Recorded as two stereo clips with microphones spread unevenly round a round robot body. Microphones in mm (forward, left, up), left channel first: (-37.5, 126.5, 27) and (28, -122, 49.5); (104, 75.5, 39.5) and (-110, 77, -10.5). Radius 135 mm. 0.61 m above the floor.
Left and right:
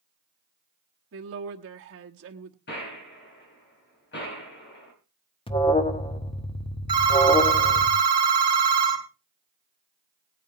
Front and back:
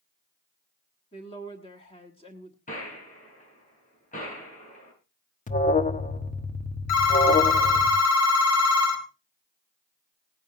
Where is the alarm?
55° left, 1.4 m.